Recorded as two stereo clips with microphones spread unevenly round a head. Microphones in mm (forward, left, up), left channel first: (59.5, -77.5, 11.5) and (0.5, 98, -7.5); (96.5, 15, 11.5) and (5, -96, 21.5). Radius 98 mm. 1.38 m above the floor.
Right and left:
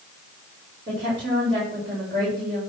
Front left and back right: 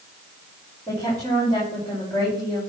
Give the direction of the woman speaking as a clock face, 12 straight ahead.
7 o'clock.